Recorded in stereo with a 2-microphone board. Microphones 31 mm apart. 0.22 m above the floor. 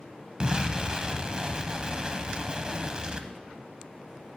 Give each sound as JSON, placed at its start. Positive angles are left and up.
{"t": 0.4, "sound": "an explosion", "side_deg": -25, "distance_m": 0.6}